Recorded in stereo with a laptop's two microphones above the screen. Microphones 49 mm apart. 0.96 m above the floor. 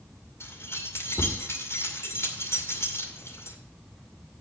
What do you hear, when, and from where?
0.4 s keys jangling: 65° left (ahead or behind), 2 m